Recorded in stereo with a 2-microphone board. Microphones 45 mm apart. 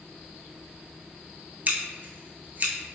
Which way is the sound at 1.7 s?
45° right (ahead or behind).